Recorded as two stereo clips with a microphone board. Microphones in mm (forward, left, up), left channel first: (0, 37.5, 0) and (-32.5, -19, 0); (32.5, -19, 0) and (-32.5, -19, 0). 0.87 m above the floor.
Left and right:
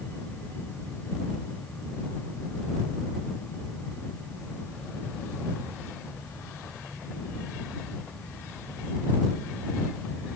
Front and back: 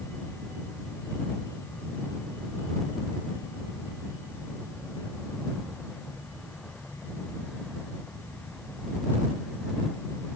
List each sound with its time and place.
Only background noise.